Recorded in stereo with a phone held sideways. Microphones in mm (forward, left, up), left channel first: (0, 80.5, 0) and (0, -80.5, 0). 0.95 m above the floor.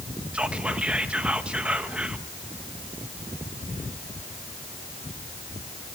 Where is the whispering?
5° right (ahead or behind), 1.3 m.